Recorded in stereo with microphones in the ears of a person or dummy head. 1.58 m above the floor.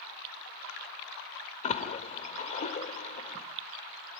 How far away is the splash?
About 2.5 m.